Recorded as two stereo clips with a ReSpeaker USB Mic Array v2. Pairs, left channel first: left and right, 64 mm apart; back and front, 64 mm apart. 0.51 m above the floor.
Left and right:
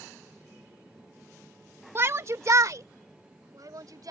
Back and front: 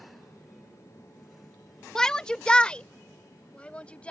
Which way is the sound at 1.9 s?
105° right.